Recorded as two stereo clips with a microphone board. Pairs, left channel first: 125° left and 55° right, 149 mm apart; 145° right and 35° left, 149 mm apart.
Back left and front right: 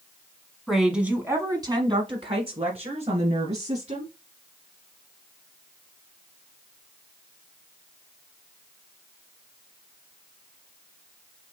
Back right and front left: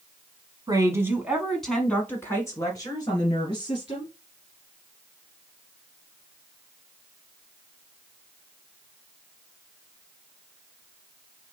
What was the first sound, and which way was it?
A woman speaking, 35° left.